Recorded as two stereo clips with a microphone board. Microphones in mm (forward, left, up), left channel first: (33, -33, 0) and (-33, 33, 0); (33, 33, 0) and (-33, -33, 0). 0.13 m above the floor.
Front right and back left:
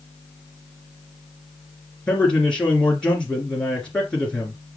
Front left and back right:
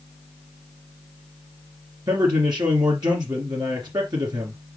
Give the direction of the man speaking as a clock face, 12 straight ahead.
4 o'clock.